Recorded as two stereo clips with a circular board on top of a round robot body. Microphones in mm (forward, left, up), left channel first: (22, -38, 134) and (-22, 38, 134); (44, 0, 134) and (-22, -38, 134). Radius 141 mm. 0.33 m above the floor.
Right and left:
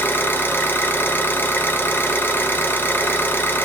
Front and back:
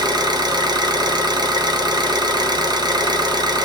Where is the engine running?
125° right, 0.7 m.